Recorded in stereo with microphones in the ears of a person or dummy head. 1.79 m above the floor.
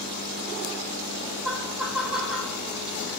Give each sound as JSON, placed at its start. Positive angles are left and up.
{"t": 1.4, "sound": "laughter", "side_deg": 0, "distance_m": 3.0}